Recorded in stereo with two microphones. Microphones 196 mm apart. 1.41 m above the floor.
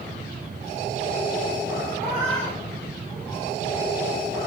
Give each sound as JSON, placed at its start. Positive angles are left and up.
{"t": 2.0, "sound": "a cat meowing", "side_deg": -30, "distance_m": 3.5}